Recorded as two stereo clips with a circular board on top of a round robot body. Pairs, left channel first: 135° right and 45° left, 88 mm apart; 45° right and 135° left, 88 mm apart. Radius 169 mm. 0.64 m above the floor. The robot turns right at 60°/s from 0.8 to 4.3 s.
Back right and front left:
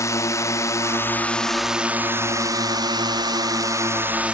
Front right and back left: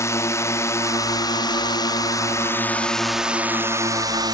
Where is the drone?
90° right; by 4.3 s 120° left.